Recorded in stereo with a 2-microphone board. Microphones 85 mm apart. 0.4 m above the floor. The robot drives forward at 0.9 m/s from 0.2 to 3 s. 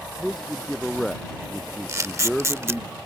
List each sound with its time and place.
0.2 s a man speaking: centre (ahead or behind)
1.9 s a camera shutter: 35° right (ahead or behind); by 2.8 s 30° right (ahead or behind)